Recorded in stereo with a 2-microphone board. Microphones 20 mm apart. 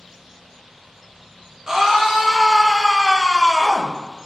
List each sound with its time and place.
1.7 s a scream: 30° right (ahead or behind), 3 m; by 4.0 s 40° right (ahead or behind), 4.5 m